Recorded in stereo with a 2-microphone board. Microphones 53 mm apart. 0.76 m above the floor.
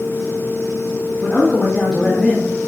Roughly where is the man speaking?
Left.